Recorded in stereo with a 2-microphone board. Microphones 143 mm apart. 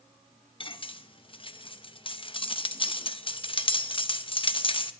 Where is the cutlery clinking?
40° left (ahead or behind), 0.6 m.